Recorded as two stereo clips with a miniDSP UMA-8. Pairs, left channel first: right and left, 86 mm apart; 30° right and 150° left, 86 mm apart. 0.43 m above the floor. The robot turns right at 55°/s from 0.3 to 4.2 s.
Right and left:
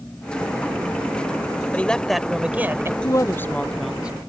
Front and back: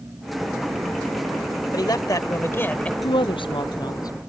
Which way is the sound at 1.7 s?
25° right.